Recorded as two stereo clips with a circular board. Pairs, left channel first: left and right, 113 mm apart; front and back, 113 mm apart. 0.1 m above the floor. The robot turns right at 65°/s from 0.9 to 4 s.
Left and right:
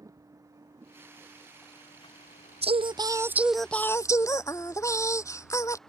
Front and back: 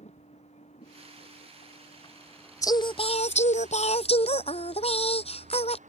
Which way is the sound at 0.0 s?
25° right.